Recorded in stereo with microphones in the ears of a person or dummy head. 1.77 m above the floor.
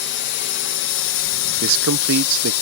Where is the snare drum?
I don't hear a snare drum.